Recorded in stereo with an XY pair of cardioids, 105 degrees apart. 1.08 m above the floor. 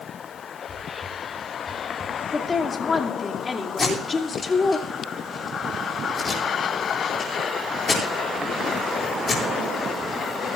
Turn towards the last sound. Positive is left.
turn(degrees=35)